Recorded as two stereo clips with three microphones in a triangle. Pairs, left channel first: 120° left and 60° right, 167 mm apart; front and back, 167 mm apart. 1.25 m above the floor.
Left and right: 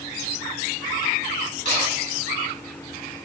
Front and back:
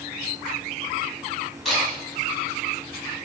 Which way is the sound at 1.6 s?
90° right.